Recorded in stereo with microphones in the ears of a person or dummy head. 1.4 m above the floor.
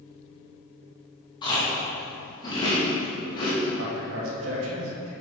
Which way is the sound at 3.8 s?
80° right.